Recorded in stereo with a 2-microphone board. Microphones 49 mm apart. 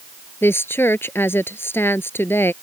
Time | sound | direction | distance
0.4 | a woman speaking | 55° left (ahead or behind) | ?